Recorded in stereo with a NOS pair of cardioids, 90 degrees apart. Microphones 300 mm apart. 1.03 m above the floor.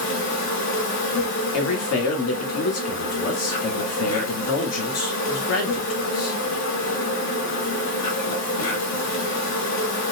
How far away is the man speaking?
About 1.4 m.